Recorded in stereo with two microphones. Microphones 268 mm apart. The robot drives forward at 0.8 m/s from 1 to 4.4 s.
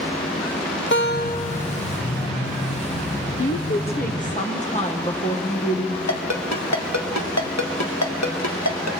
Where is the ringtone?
75° left (ahead or behind), 1.6 m.